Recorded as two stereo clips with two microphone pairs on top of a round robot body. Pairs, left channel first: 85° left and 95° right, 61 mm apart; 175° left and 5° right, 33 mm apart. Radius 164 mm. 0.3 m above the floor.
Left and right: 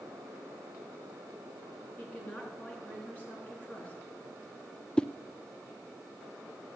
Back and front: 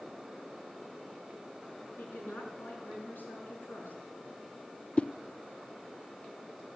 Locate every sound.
2.0 s a woman speaking: 150° left, 5 m
5.0 s a whoosh: 125° left, 0.5 m